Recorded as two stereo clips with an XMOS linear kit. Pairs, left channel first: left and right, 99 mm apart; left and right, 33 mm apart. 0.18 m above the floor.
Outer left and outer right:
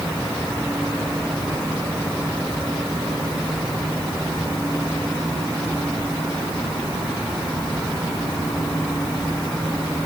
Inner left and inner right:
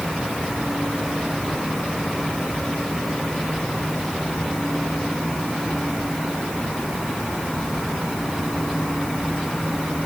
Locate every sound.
Only background noise.